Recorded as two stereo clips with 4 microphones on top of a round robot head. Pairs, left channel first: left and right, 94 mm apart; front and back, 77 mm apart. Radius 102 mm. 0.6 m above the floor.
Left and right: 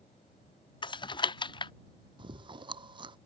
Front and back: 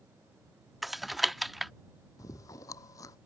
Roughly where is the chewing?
Ahead right.